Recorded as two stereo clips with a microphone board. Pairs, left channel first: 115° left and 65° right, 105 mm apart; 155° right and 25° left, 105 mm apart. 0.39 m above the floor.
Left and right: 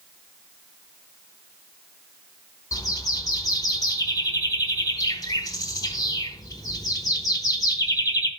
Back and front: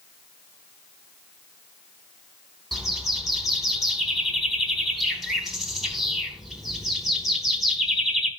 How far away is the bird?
About 1.1 m.